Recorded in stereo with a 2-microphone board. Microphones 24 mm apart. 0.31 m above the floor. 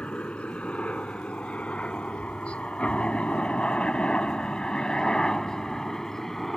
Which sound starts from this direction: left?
A helicopter, at 0.0 s.